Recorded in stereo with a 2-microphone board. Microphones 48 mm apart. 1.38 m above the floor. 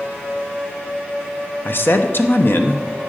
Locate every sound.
1.6 s a man speaking: 50° left (ahead or behind), 0.9 m